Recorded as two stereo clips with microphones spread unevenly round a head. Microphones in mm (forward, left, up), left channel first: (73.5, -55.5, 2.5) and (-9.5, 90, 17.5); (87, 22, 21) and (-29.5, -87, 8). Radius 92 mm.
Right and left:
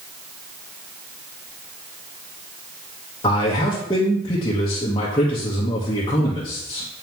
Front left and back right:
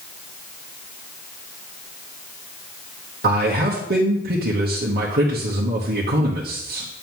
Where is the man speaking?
125° right, 1.2 m.